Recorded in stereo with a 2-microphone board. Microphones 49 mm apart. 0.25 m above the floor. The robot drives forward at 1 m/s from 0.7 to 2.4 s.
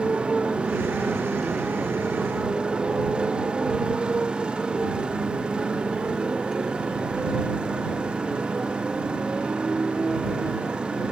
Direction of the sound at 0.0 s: 20° right (ahead or behind).